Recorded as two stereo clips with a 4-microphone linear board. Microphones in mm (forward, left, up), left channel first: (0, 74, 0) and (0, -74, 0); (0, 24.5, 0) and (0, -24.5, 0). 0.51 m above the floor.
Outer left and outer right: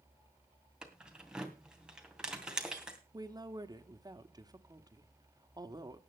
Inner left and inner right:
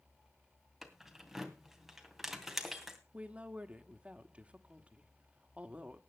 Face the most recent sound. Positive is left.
turn(degrees=-25)  # may be behind; listen again after turning